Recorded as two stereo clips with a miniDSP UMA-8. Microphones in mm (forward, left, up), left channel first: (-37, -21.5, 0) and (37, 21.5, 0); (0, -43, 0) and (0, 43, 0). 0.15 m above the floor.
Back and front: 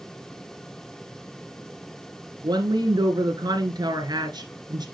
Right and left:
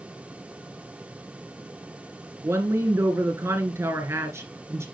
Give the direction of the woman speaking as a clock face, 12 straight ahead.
11 o'clock.